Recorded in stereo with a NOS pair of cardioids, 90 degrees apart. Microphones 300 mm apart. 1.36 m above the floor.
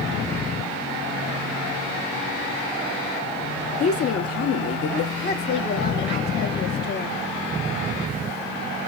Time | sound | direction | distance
3.8 | a woman speaking | 55° left | 0.7 m
5.2 | a woman speaking | 35° left | 0.7 m